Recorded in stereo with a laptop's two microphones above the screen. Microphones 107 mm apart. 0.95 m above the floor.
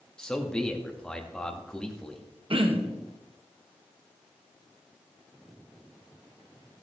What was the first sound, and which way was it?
A man speaking, 10° left (ahead or behind).